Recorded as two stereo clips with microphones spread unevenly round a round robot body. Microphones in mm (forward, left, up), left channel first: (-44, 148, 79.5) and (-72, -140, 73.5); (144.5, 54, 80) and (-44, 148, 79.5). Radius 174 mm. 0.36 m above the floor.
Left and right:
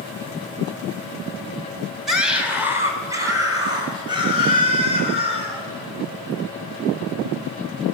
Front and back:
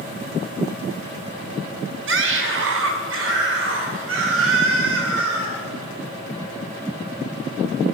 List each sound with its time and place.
2.1 s a scream: 175° left, 3.5 m; by 5.6 s 165° right, 8.5 m